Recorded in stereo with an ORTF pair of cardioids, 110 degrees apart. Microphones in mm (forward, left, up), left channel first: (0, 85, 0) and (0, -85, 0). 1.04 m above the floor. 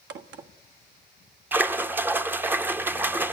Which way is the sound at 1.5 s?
10° right.